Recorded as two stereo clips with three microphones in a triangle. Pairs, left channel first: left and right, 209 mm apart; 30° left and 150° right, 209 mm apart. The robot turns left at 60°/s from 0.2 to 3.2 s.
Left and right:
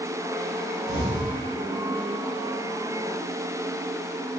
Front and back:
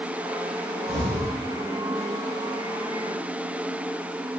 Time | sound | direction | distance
0.9 | an explosion | 125° left | 4 m